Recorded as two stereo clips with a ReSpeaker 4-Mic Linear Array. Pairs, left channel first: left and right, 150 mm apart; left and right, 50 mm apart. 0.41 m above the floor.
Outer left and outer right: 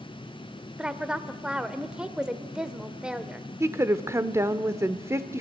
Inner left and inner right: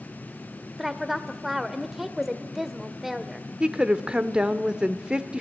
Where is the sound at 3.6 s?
20° right (ahead or behind), 0.7 m.